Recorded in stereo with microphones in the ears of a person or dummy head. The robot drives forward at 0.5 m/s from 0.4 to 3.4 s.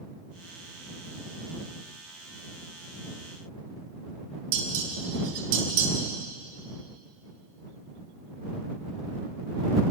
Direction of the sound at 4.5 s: 85° right.